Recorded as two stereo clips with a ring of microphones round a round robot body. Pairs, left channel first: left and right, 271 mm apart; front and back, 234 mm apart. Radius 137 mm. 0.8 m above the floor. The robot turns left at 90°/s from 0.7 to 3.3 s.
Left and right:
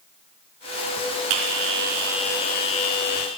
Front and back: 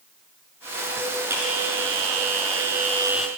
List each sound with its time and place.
1.3 s a bell: 100° right, 3.5 m; by 3.3 s 85° left, 3.5 m